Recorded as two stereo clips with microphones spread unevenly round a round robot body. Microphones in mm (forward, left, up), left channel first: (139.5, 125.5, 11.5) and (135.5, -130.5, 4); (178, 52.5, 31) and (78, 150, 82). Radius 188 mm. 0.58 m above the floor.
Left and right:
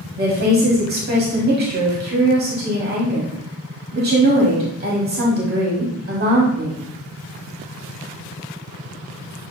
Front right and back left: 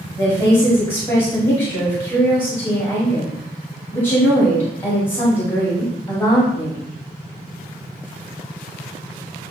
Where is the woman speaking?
75° right, 1.4 m.